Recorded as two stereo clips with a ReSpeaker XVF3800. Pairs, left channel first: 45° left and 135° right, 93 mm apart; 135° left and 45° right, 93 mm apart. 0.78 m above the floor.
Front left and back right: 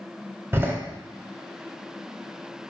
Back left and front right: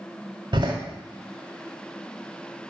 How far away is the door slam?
About 2 m.